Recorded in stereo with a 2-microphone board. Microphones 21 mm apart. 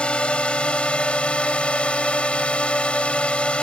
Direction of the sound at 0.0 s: 60° left (ahead or behind).